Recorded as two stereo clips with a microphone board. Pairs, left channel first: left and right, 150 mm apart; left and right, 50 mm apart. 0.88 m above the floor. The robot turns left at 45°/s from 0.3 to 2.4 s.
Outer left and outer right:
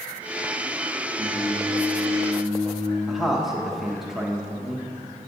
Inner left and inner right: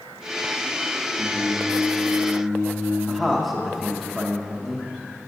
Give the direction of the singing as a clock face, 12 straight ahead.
6 o'clock.